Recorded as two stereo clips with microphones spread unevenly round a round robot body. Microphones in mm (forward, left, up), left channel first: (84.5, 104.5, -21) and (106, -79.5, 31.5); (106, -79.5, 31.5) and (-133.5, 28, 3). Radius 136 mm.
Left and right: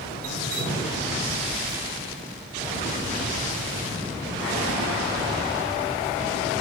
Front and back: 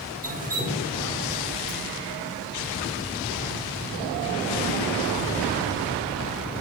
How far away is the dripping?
About 2.5 m.